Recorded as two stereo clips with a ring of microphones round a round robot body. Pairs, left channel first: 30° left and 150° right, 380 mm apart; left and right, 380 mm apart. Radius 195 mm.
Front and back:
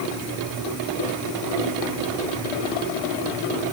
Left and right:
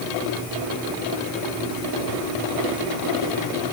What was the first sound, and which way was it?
Only background noise.